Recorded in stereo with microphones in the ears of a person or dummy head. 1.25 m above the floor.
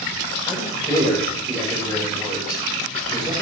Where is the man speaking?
25° left (ahead or behind), 6 m.